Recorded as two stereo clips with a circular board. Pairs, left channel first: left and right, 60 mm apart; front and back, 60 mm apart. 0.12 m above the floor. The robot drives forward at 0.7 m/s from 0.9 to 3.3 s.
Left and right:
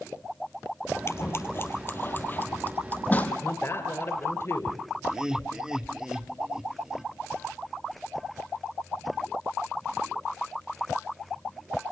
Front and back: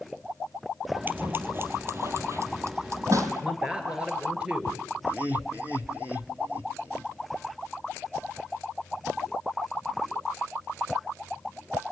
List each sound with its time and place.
1.1 s scissors: 125° left, 1.8 m; by 3.3 s 155° left, 3 m
3.4 s a man speaking: 110° left, 2.5 m
5.0 s laughter: 155° right, 1.8 m